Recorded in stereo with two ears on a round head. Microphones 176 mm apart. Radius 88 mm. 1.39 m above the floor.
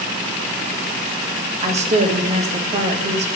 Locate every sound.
1.6 s a woman speaking: 35° right (ahead or behind), 0.6 m